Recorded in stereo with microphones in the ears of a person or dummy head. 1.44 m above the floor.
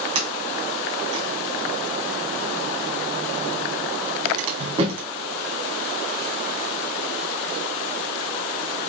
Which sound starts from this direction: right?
A sliding door, at 0.1 s.